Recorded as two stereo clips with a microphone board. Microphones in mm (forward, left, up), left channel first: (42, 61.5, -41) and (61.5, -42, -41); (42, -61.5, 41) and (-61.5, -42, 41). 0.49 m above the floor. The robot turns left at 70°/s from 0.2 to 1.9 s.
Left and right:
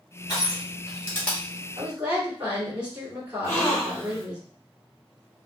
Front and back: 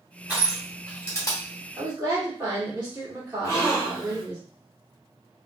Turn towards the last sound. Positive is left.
turn(degrees=40)